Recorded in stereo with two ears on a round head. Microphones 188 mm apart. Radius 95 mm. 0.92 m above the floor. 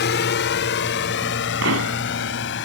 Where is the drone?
55° left (ahead or behind); by 2.6 s 60° left (ahead or behind).